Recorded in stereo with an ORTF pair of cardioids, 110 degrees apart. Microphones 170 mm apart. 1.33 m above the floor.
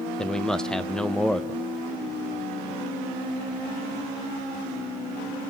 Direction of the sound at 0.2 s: 5° left.